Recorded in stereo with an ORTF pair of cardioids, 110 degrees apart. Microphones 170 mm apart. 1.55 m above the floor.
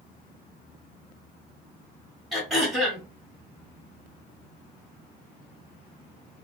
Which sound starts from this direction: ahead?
Throat clearing, at 2.3 s.